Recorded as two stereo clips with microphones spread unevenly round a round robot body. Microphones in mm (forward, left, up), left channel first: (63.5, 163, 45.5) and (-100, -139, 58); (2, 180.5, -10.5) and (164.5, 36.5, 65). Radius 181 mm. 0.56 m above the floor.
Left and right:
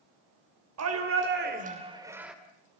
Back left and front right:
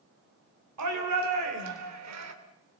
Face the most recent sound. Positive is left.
turn(degrees=-30)